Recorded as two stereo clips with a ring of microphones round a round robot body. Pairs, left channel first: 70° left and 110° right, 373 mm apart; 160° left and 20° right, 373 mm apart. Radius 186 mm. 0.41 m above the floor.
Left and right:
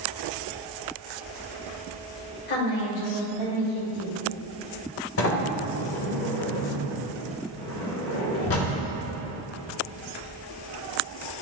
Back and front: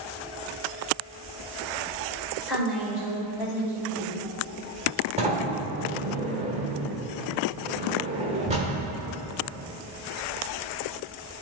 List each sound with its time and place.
2.5 s a woman speaking: 70° left, 2 m; by 4.2 s 40° left, 2 m
5.2 s a sliding door: 40° left, 1.1 m